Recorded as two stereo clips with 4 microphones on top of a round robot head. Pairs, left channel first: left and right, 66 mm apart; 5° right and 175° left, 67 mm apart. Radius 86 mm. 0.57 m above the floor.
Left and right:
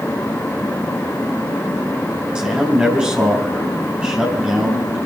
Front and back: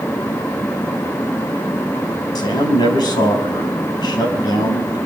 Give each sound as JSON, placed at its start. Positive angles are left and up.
{"t": 2.4, "sound": "a man speaking", "azimuth_deg": -15, "distance_m": 4.0}